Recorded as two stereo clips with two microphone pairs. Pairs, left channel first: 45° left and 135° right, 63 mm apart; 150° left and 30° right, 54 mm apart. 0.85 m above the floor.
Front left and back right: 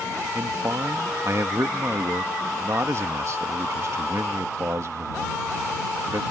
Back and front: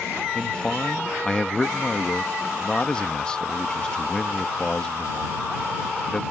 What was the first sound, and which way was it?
A man speaking, 145° right.